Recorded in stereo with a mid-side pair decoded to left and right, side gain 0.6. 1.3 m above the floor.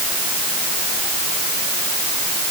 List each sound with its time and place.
Only background noise.